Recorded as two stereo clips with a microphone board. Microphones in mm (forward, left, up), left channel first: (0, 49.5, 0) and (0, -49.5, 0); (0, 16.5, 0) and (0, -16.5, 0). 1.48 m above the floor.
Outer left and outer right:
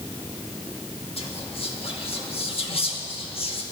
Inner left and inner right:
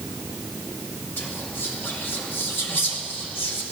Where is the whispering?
75° left (ahead or behind), 2 m.